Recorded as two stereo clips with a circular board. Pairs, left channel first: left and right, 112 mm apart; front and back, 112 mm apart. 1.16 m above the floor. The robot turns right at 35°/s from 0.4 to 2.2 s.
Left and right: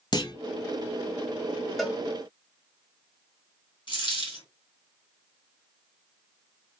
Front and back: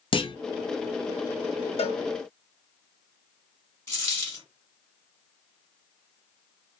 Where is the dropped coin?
65° left, 1.4 m.